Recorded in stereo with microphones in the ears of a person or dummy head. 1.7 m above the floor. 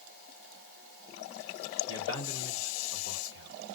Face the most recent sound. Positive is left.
turn(degrees=70)  # may be behind; listen again after turning